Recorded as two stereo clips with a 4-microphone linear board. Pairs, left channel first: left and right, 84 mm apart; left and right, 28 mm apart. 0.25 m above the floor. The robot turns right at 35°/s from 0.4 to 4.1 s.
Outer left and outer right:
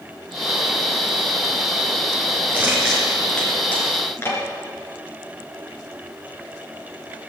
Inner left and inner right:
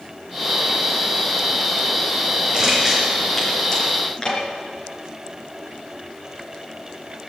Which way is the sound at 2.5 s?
20° right (ahead or behind).